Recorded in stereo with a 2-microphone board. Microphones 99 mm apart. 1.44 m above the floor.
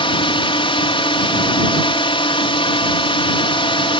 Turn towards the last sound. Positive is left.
turn(degrees=65)  # may be behind; listen again after turning